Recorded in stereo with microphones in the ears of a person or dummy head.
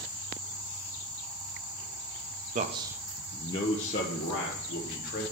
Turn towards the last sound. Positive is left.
turn(degrees=50)  # may be behind; listen again after turning